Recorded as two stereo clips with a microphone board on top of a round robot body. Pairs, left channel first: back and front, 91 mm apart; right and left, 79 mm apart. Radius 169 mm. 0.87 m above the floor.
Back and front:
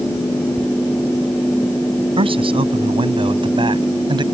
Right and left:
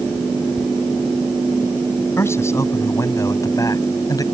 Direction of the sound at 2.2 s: 30° right.